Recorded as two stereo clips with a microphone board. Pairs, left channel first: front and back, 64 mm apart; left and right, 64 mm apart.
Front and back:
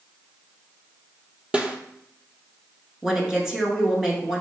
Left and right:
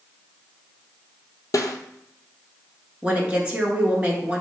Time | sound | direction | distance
1.5 | a snare drum | 110° left | 0.7 m
3.0 | a woman speaking | 115° right | 1.1 m